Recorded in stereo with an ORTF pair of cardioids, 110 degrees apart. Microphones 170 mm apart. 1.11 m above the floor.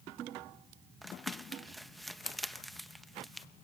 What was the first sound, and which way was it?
Crumpling, straight ahead.